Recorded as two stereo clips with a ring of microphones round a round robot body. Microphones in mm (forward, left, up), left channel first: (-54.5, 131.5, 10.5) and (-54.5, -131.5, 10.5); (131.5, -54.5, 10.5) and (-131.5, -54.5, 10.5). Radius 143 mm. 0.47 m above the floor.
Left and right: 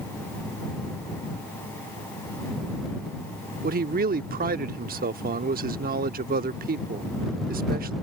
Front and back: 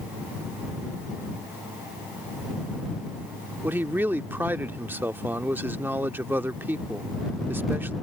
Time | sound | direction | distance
3.6 | a man speaking | 105° right | ?